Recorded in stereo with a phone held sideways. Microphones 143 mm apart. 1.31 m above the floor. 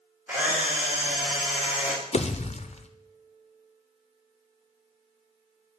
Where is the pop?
50° left (ahead or behind), 0.5 m.